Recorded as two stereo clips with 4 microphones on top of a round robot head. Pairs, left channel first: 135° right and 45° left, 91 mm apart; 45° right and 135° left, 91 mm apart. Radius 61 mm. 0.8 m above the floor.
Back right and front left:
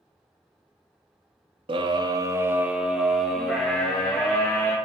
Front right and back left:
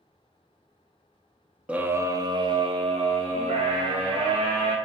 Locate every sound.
1.7 s a scream: 60° left, 1.2 m; by 4.8 s 150° left, 3.5 m